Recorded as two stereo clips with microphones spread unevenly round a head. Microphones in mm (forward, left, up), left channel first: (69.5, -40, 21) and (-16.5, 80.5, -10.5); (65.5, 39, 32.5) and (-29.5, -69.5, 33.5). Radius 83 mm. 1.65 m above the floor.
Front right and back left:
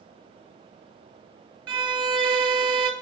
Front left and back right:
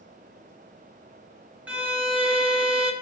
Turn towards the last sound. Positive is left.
turn(degrees=165)